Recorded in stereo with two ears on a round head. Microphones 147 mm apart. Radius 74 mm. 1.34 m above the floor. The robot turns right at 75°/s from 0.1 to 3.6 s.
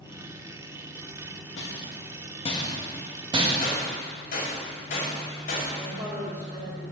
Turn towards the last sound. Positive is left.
turn(degrees=-15)  # may be behind; listen again after turning